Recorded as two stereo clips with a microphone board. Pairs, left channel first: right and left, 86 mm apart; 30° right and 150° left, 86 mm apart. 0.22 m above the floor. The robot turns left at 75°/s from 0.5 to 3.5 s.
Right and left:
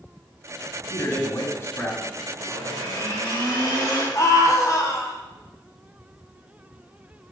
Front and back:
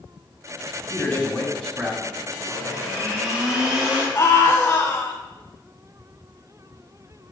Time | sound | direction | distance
0.9 | a man speaking | 50° right | 1.5 m
2.4 | a blender | 50° right | 4 m
4.2 | a scream | 60° right | 1.7 m